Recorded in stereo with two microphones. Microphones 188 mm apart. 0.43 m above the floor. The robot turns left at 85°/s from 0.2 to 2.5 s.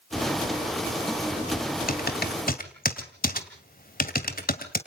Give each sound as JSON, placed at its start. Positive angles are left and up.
{"t": 1.9, "sound": "typing on a keyboard", "side_deg": 55, "distance_m": 2.0}